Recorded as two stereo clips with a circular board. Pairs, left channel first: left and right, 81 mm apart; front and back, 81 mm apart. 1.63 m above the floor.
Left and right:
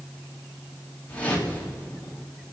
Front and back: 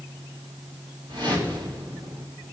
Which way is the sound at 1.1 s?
160° left.